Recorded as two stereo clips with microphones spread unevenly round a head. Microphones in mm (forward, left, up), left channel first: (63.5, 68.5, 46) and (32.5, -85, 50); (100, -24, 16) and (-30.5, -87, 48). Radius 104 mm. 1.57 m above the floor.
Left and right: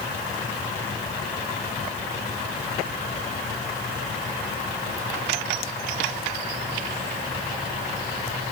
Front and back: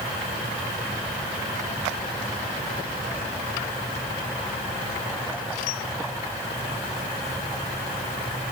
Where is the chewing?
No chewing in this recording.